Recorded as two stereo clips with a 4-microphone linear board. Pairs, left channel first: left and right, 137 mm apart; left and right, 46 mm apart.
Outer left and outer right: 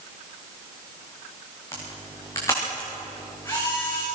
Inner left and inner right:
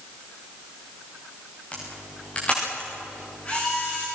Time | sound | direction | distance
1.7 | a camera shutter | 20° left (ahead or behind) | 7.5 m